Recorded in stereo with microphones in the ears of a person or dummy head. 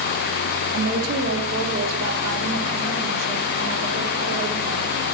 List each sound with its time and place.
0.7 s a woman speaking: 75° right (ahead or behind), 1.6 m; by 5.0 s 85° right, 5 m